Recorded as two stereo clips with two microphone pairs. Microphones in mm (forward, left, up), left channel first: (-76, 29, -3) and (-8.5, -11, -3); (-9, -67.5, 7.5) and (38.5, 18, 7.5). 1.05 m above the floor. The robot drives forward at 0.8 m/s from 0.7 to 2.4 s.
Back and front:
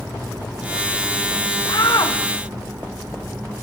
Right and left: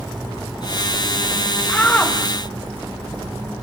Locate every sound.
1.7 s a shout: 170° left, 1.4 m